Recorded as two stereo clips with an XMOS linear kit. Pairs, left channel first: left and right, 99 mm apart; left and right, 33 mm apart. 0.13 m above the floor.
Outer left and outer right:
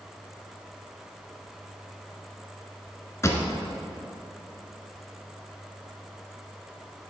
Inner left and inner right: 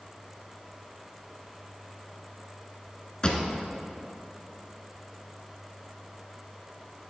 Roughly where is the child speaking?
No child speaking in this recording.